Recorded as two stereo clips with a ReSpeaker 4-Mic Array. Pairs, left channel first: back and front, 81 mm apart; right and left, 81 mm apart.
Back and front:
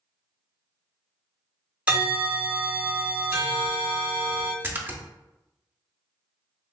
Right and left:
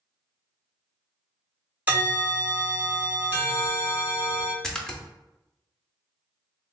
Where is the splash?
15° right, 0.5 m.